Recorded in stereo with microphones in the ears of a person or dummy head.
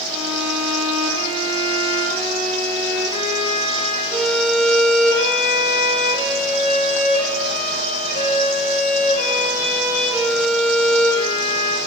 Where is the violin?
60° left (ahead or behind), 2.5 m.